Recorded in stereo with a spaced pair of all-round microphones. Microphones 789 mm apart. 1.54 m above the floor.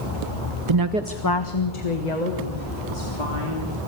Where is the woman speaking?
40° right (ahead or behind), 0.7 m; by 3.7 s 70° left (ahead or behind), 4 m.